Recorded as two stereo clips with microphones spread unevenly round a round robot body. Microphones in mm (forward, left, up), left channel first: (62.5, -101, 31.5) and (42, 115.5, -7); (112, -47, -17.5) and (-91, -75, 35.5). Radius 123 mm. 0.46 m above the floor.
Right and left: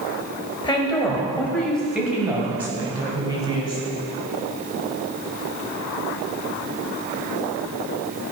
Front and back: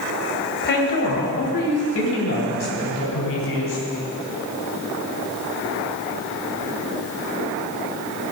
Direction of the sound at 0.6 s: 10° right.